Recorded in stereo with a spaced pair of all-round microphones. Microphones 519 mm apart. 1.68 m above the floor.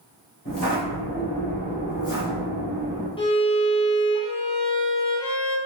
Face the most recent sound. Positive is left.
turn(degrees=10)  # may be behind; listen again after turning